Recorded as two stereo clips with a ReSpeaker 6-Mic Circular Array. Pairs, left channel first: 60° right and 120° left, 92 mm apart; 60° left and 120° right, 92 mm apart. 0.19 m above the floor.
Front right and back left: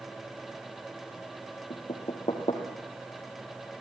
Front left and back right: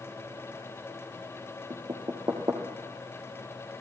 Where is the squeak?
I don't hear a squeak.